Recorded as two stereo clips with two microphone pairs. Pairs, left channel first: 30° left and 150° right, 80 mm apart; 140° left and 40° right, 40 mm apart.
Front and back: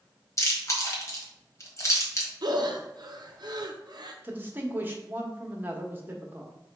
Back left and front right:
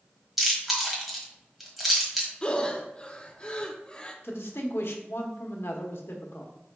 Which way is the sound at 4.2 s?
145° left.